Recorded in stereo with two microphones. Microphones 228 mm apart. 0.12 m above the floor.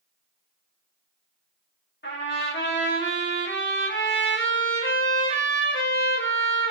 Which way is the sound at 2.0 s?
60° left (ahead or behind).